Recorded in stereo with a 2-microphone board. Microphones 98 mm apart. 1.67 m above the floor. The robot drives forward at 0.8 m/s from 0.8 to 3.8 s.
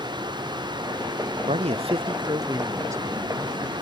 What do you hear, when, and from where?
1.5 s a man speaking: 80° right; by 3.7 s 20° right (ahead or behind)